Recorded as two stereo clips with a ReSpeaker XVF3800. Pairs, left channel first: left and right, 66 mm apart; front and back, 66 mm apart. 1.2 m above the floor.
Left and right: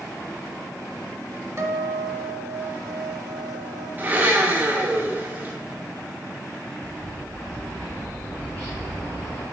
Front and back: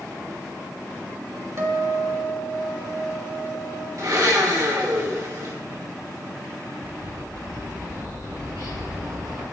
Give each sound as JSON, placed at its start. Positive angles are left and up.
{"t": 1.6, "sound": "a guitar", "azimuth_deg": -135, "distance_m": 1.7}
{"t": 4.0, "sound": "a blender", "azimuth_deg": -150, "distance_m": 2.5}
{"t": 6.8, "sound": "a bird", "azimuth_deg": 155, "distance_m": 5.5}